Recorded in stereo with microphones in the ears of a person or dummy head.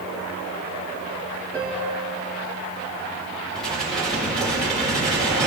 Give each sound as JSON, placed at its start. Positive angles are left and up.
{"t": 1.5, "sound": "a piano", "side_deg": 5, "distance_m": 2.5}
{"t": 3.5, "sound": "dishes clattering", "side_deg": 0, "distance_m": 4.0}